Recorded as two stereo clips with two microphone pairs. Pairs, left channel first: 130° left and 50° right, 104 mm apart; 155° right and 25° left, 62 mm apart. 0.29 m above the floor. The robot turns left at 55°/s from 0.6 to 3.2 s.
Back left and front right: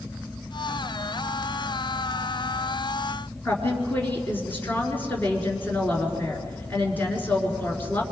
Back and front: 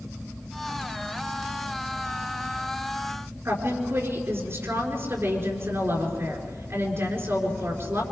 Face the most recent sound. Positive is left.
turn(degrees=60)